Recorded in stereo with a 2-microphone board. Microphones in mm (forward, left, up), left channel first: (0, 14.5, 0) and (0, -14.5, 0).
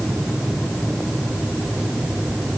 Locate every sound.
Only background noise.